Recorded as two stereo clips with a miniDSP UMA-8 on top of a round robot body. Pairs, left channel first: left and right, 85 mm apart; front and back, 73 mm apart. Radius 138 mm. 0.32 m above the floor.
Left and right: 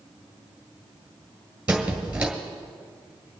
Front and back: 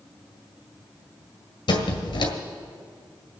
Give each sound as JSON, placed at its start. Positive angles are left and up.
{"t": 1.7, "sound": "a squeak", "azimuth_deg": -15, "distance_m": 1.7}